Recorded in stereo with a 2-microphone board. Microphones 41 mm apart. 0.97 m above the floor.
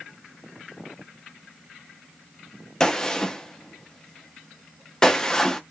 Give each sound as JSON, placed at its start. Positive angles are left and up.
{"t": 2.8, "sound": "a gunshot", "side_deg": 15, "distance_m": 0.5}